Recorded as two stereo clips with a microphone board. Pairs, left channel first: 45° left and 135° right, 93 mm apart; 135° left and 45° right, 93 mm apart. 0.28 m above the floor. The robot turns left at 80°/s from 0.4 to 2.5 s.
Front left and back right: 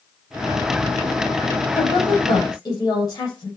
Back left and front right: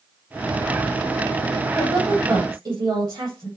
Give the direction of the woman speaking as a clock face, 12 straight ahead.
10 o'clock.